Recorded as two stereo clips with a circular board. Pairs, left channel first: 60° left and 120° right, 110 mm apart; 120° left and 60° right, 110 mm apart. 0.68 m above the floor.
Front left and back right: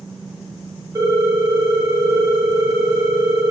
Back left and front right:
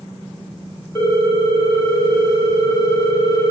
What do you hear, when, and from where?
0.9 s a ringtone: straight behind, 1.0 m